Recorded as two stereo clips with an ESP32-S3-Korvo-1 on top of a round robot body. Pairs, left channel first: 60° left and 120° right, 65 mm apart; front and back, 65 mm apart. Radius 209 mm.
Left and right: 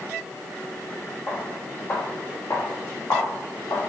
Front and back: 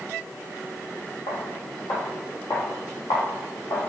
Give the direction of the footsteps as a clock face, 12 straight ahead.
12 o'clock.